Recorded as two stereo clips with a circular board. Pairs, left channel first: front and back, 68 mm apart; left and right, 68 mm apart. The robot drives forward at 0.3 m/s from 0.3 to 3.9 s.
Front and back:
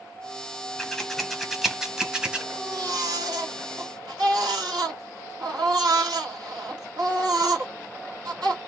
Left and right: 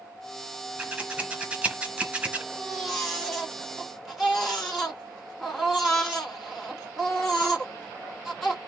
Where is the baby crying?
175° right, 2 m.